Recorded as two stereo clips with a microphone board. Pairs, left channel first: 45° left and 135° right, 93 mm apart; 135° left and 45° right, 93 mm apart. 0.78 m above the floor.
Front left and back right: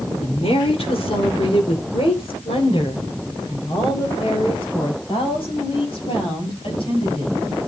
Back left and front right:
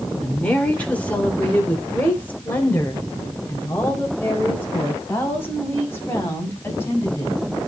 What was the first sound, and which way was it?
A woman speaking, 60° left.